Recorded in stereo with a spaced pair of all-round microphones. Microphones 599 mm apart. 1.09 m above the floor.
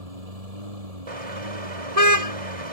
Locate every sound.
0.0 s a lawn mower: 80° right; by 2.7 s 75° right (ahead or behind)
1.1 s a car horn: 65° right (ahead or behind)